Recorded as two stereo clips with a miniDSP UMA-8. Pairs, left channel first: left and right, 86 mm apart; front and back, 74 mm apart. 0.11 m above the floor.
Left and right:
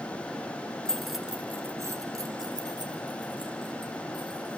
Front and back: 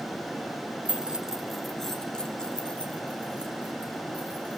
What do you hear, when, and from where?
0.8 s keys jangling: 150° left, 1.1 m; by 4.6 s 70° right, 3.5 m